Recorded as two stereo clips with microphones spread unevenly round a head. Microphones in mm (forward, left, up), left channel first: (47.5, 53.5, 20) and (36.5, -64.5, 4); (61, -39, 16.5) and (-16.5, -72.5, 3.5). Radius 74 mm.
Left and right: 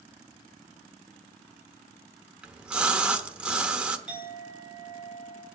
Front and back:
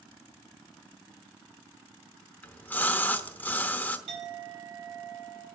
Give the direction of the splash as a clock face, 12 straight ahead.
12 o'clock.